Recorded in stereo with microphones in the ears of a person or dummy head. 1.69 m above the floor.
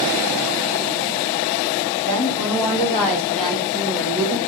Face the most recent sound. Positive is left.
turn(degrees=-20)  # may be behind; listen again after turning